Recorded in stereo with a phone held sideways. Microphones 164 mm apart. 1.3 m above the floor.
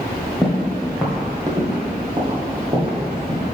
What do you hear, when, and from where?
0.4 s footsteps: centre (ahead or behind), 1.7 m; by 3.4 s 45° right (ahead or behind), 2.5 m